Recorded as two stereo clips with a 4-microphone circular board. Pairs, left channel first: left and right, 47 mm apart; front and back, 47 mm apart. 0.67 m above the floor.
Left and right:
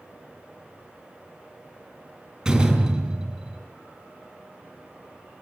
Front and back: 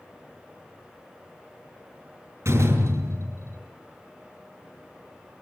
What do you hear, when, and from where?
2.5 s a door slam: 165° right, 6.5 m